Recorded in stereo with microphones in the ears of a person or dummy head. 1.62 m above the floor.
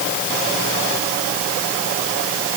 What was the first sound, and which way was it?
Only background noise.